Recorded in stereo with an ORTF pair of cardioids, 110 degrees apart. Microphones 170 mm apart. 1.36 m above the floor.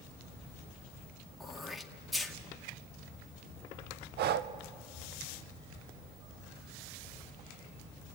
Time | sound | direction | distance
1.4 | throat clearing | straight ahead | 2 m
4.2 | breathing | 65° right | 0.8 m